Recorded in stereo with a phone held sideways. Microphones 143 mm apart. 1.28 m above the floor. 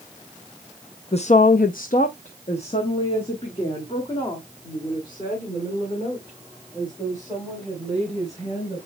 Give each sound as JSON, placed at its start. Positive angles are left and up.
{"t": 1.1, "sound": "a woman speaking", "side_deg": 45, "distance_m": 0.6}